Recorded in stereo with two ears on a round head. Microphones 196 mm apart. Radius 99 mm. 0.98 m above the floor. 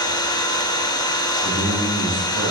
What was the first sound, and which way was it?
An engine running, 20° left (ahead or behind).